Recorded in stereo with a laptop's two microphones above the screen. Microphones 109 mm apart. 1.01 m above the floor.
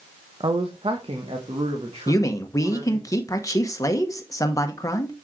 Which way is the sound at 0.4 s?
50° right (ahead or behind).